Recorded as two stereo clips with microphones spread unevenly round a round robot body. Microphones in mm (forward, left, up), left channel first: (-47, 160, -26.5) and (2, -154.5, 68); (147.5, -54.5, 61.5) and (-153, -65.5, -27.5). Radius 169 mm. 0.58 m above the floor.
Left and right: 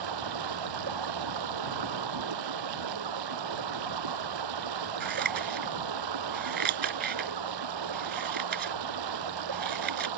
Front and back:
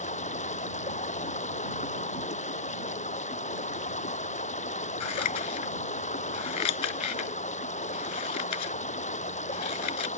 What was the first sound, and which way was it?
Running water, 65° right.